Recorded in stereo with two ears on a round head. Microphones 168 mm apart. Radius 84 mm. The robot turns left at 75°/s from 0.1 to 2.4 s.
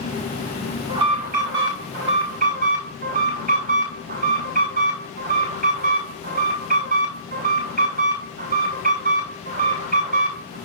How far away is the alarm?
About 6.5 m.